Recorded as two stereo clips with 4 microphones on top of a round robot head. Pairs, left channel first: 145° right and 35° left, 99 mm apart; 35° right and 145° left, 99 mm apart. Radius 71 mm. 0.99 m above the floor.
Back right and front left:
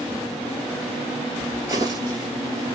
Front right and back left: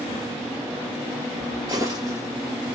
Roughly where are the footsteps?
Left.